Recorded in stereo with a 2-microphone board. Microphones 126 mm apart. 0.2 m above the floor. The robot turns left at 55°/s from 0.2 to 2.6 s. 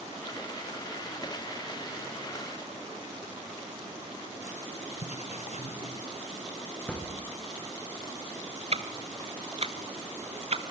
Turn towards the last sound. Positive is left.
turn(degrees=-55)  # may be behind; listen again after turning